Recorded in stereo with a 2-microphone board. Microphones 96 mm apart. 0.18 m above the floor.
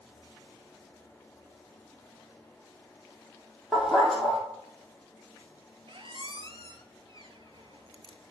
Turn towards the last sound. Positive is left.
turn(degrees=-65)  # may be behind; listen again after turning